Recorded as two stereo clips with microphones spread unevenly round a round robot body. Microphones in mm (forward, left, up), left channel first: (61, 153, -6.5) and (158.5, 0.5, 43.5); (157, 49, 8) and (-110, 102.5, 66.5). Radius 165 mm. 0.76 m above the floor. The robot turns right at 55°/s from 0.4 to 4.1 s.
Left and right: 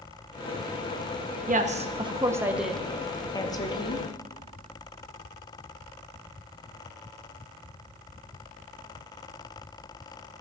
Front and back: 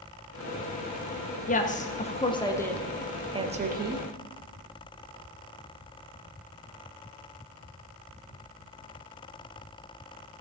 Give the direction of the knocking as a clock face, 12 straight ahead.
I don't hear knocking.